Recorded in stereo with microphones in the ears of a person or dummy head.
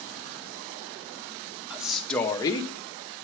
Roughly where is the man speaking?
Centre.